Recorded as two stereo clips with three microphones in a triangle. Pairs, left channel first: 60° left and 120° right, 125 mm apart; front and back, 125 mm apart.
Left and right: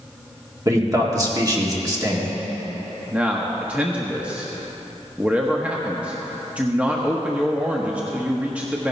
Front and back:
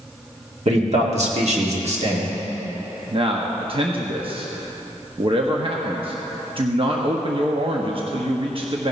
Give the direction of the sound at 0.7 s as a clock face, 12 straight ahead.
6 o'clock.